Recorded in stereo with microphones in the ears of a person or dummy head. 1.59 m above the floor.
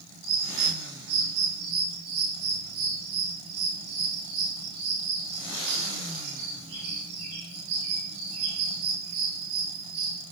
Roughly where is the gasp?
I don't hear a gasp.